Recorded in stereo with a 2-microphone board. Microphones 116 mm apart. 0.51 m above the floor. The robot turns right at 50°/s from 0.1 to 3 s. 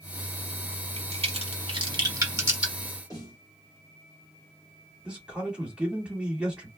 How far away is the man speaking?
About 1.5 m.